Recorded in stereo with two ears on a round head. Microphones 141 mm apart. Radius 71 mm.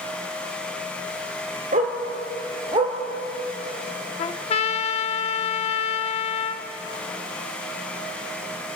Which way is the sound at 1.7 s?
45° right (ahead or behind).